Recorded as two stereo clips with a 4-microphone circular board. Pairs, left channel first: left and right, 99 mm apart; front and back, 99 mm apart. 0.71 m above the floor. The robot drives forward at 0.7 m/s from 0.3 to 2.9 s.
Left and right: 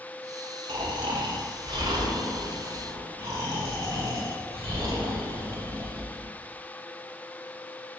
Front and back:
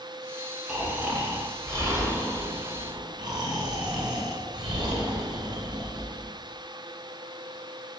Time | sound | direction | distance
0.7 | snoring | 100° right | 1.6 m